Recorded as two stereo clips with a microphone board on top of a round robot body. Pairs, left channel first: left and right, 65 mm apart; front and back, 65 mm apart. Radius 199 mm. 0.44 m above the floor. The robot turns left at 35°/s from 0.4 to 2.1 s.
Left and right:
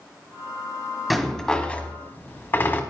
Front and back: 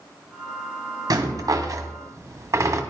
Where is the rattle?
Straight behind, 1.7 m; by 2.8 s 145° left, 1.7 m.